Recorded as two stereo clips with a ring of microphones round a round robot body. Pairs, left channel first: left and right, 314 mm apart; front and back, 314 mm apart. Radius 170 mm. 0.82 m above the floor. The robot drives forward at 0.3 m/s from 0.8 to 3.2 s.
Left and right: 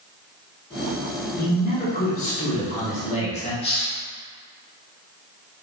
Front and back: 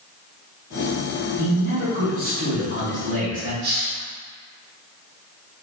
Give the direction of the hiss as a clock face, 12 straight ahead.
7 o'clock.